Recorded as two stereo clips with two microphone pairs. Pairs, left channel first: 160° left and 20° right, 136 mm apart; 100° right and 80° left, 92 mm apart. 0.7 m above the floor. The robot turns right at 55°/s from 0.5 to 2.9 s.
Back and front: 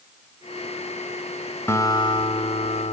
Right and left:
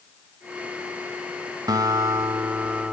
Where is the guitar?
90° left, 0.6 m; by 2.9 s 155° left, 0.6 m.